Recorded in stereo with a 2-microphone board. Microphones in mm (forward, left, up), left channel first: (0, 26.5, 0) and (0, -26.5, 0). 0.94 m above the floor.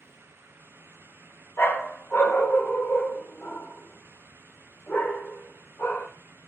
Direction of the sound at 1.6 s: 45° left (ahead or behind).